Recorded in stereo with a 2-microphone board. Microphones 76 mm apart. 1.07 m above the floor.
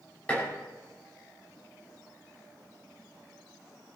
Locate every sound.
0.3 s dishes clattering: 20° left (ahead or behind), 6 m